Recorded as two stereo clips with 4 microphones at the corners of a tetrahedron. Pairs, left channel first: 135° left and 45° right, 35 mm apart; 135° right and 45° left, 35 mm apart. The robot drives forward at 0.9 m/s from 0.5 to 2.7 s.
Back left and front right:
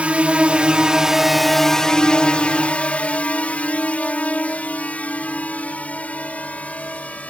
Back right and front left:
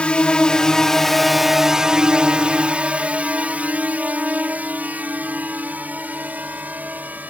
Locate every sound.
0.0 s a drone: 85° right; by 7.3 s 85° left